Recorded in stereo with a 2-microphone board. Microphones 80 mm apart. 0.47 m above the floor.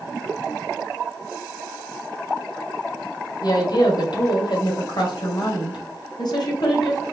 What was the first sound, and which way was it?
A woman speaking, 55° left (ahead or behind).